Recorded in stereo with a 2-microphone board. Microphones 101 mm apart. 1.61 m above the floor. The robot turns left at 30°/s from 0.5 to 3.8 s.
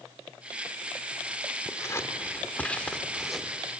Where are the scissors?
30° left (ahead or behind), 1.5 m; by 3.6 s 5° right (ahead or behind), 1.5 m.